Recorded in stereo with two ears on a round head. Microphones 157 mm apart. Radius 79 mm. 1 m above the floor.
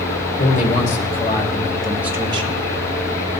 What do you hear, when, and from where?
0.4 s a man speaking: 50° left (ahead or behind), 2.5 m; by 2.6 s 40° right (ahead or behind), 1.4 m